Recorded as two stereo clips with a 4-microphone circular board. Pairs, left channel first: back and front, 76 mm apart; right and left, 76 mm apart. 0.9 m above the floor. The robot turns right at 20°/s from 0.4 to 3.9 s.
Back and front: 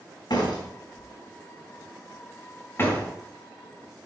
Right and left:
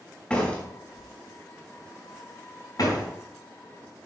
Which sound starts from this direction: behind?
A door slam, at 0.3 s.